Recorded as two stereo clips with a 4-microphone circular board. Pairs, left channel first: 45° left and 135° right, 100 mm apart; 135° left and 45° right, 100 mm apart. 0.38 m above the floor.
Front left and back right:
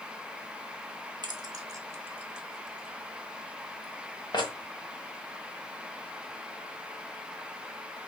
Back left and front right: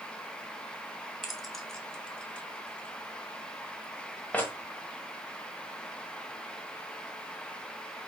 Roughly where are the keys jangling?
Behind right.